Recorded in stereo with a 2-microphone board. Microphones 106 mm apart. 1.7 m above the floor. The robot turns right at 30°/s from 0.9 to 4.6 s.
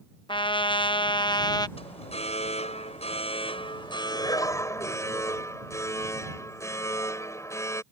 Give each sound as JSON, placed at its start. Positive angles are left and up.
{"t": 0.3, "sound": "a trumpet", "side_deg": 50}
{"t": 1.8, "sound": "an alarm", "azimuth_deg": 70}